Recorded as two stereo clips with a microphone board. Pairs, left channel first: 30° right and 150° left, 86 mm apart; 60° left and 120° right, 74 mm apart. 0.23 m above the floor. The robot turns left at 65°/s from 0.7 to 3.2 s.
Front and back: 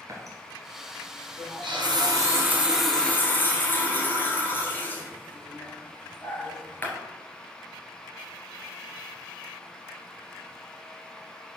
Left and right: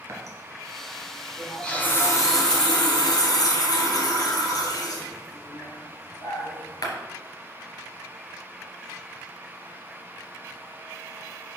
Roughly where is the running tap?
Behind.